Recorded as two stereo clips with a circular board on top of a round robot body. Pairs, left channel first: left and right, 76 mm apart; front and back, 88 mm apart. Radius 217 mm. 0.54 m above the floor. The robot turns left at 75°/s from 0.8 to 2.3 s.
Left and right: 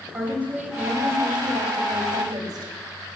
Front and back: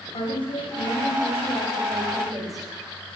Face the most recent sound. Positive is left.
turn(degrees=-135)